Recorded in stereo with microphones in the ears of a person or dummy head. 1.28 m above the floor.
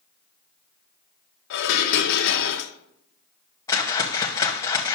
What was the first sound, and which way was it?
Dishes clattering, 65° left (ahead or behind).